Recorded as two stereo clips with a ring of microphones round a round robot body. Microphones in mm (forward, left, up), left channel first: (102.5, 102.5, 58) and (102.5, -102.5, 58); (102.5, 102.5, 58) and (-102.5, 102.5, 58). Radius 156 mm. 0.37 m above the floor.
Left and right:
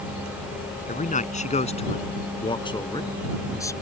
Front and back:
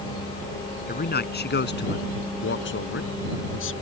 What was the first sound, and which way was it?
A man speaking, 40° left.